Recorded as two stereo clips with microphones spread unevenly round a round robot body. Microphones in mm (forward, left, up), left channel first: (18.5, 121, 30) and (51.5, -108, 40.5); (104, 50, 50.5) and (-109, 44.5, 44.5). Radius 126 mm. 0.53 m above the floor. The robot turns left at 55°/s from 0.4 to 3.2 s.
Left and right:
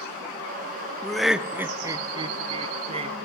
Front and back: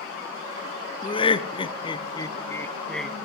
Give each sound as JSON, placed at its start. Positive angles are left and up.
{"t": 1.0, "sound": "laughter", "azimuth_deg": 25, "distance_m": 0.6}